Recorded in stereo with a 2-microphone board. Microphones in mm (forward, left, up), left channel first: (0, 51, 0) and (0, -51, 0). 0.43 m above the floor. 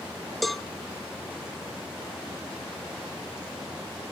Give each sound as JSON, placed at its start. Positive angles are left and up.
{"t": 0.4, "sound": "a cowbell", "side_deg": 0, "distance_m": 0.5}